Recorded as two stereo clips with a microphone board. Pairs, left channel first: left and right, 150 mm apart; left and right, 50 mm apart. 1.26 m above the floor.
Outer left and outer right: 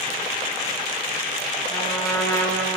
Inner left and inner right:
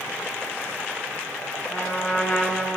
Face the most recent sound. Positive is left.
turn(degrees=25)  # may be behind; listen again after turning